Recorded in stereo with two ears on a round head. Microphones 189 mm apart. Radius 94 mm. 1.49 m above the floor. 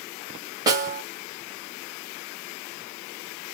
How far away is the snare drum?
About 0.9 m.